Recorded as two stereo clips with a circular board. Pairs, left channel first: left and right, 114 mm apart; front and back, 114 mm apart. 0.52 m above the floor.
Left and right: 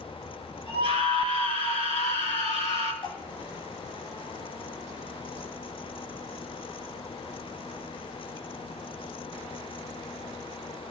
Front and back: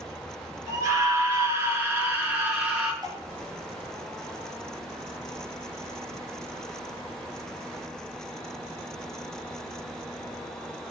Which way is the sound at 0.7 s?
120° left.